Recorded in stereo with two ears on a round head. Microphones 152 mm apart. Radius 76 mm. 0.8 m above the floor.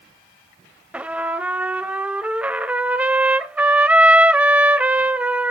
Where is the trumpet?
10° right (ahead or behind), 0.6 m.